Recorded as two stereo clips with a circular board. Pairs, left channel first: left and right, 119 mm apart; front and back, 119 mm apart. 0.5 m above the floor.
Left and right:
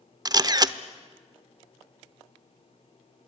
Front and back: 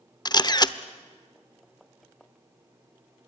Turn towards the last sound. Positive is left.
turn(degrees=-45)